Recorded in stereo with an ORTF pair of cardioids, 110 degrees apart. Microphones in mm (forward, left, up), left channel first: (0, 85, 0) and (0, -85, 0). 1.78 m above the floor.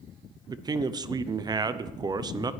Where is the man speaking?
25° right, 0.7 m.